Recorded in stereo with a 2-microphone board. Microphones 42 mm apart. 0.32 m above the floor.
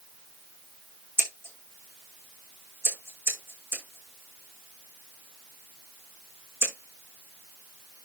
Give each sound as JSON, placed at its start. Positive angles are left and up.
{"t": 1.2, "sound": "scissors", "side_deg": -60, "distance_m": 5.0}